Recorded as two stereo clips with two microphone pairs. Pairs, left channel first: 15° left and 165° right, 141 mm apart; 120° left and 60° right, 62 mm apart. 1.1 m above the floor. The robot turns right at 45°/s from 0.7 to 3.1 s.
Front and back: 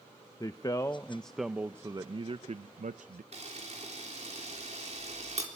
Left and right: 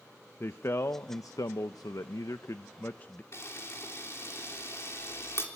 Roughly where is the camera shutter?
Behind.